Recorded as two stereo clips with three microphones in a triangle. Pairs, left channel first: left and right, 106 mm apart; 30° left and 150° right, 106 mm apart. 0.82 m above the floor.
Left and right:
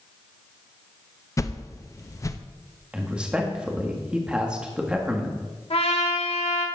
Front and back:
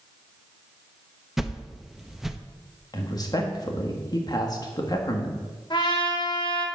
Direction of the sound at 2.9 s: 10° right.